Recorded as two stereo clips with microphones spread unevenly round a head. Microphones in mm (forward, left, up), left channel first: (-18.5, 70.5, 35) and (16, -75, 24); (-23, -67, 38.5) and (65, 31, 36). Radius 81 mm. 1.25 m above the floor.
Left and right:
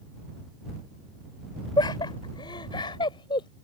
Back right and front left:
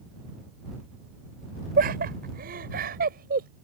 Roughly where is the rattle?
I don't hear a rattle.